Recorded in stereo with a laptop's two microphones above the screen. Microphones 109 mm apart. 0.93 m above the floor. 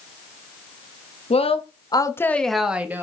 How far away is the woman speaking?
About 1.4 m.